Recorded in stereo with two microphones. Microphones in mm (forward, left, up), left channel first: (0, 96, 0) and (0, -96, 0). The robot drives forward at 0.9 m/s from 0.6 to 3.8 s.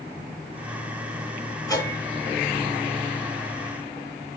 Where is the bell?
20° left (ahead or behind), 4 m; by 4.1 s 30° left (ahead or behind), 2.5 m.